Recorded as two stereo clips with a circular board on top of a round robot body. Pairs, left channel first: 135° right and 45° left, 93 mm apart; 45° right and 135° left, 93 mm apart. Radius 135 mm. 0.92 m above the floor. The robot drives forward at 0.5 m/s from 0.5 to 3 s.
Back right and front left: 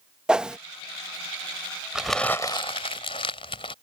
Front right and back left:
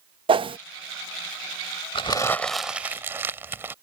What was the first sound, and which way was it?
A whoosh, 125° left.